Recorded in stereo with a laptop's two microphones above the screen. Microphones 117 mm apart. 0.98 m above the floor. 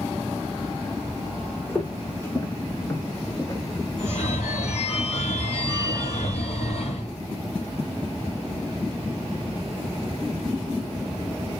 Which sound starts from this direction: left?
A phone ringing, at 4.0 s.